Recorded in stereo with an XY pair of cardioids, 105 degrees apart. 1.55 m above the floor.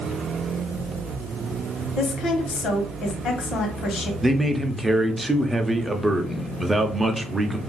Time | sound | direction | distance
2.0 | a woman speaking | 65° left | 1.2 m
4.2 | a man speaking | 15° right | 0.7 m